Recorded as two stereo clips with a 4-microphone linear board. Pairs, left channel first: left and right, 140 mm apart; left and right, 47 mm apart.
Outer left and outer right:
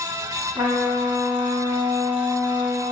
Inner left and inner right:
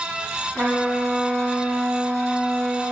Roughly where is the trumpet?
Right.